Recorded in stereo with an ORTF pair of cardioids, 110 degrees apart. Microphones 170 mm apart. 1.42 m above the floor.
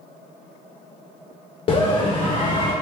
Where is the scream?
35° left, 0.6 m.